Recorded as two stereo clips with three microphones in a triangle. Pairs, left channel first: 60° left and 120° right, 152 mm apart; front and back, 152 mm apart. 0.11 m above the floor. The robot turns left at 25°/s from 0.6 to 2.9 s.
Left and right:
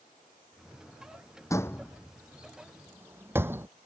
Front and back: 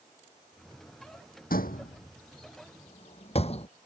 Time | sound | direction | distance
1.5 | a door slam | 10° right | ?